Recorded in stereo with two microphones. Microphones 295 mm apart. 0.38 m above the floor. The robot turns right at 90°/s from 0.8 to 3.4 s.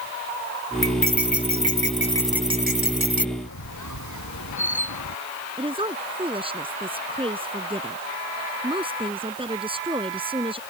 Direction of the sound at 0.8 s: 45° left.